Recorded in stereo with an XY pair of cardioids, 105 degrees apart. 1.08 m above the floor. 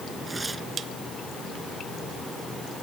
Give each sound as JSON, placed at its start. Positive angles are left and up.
{"t": 0.3, "sound": "tearing paper", "azimuth_deg": -25}